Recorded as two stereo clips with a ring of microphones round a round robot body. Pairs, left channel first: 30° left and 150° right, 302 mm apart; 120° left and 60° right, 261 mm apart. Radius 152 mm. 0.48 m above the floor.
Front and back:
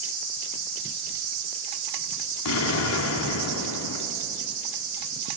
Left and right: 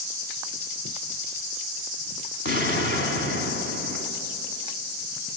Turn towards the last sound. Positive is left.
turn(degrees=75)